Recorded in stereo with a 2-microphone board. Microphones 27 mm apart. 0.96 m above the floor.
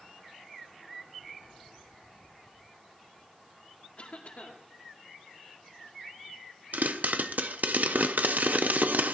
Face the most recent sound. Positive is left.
turn(degrees=-75)  # may be behind; listen again after turning